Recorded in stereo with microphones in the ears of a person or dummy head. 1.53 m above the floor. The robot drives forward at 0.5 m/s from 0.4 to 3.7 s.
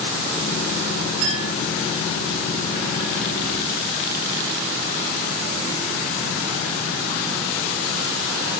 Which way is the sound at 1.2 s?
65° right (ahead or behind).